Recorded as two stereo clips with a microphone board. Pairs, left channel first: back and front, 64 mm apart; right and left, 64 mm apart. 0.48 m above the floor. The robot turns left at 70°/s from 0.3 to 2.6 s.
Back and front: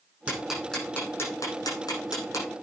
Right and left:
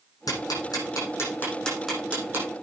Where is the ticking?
75° right, 8.5 m; by 2.5 s 135° left, 8.5 m.